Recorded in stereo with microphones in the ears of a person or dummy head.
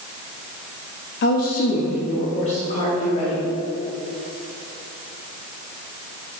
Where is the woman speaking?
45° left (ahead or behind), 0.7 m; by 3.5 s 30° left (ahead or behind), 2 m.